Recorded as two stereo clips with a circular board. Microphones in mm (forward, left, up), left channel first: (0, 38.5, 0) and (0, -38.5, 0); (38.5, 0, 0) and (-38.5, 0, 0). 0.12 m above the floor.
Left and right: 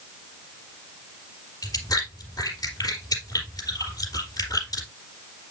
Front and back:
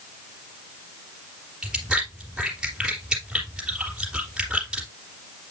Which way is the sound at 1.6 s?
105° left.